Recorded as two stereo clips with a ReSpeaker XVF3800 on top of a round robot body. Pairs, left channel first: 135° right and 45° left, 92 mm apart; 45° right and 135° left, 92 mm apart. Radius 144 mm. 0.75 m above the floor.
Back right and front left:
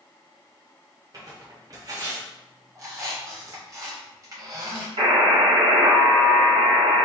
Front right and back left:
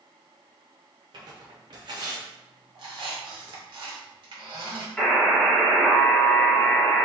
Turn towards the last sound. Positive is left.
turn(degrees=40)